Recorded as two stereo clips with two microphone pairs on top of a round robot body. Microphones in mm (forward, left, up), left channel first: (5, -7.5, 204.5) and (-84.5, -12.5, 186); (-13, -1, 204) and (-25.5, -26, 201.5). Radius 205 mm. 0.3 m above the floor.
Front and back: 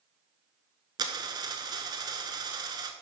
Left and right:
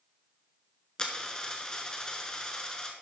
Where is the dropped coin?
135° left, 0.8 m.